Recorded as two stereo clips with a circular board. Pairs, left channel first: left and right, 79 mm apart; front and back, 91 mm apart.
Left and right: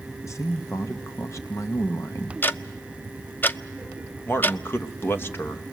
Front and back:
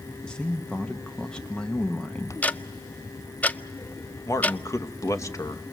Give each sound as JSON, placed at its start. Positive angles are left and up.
{"t": 0.2, "sound": "a man speaking", "azimuth_deg": 75, "distance_m": 1.2}
{"t": 2.4, "sound": "ticking", "azimuth_deg": 55, "distance_m": 0.5}
{"t": 4.2, "sound": "a man speaking", "azimuth_deg": 40, "distance_m": 1.2}